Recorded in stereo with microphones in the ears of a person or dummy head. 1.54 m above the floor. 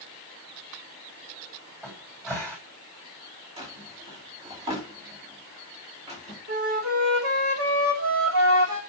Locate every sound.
1.8 s a cupboard door: 15° right (ahead or behind), 4.5 m
3.6 s a drawer: 30° right (ahead or behind), 2.5 m
6.5 s a flute: 75° right (ahead or behind), 2.5 m